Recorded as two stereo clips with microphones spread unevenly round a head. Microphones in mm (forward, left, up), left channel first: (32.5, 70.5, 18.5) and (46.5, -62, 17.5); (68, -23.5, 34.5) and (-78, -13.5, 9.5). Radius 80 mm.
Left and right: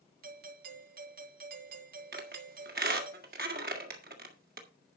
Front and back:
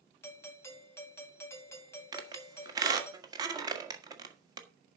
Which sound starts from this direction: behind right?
A squeak, at 2.1 s.